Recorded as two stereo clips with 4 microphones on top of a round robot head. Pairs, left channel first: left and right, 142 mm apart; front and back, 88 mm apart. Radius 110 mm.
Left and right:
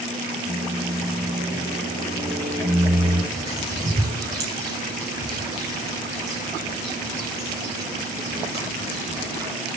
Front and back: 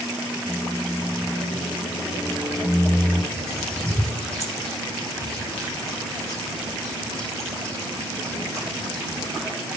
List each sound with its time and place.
0.5 s a microwave: 65° right, 6.5 m
3.3 s a bird: 85° right, 6.5 m